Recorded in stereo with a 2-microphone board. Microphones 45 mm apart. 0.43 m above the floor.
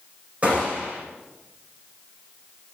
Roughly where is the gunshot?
Right.